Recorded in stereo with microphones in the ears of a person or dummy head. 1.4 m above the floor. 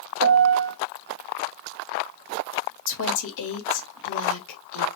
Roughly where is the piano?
Right.